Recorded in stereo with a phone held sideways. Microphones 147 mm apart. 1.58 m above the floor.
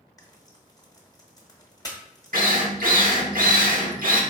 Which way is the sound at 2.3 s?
75° right (ahead or behind).